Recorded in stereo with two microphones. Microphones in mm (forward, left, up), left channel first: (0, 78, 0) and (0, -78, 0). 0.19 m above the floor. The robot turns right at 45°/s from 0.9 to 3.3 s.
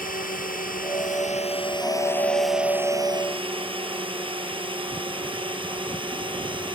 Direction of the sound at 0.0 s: 60° left (ahead or behind).